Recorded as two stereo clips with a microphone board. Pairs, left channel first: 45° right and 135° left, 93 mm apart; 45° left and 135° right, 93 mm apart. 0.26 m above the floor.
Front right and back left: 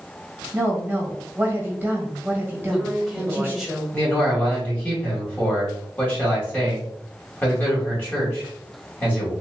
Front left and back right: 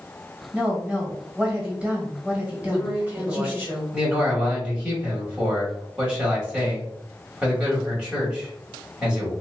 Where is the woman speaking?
165° left, 1.5 m.